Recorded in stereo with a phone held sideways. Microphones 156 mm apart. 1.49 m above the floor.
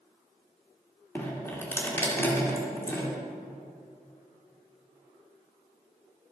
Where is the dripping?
15° left (ahead or behind), 2 m.